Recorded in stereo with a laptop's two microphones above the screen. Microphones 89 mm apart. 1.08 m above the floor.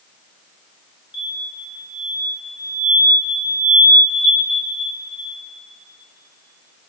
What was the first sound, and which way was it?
An explosion, 55° left (ahead or behind).